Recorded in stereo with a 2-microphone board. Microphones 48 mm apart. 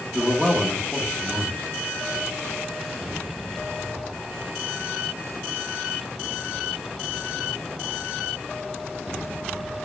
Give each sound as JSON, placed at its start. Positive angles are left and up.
{"t": 0.1, "sound": "a man speaking", "side_deg": -15, "distance_m": 0.9}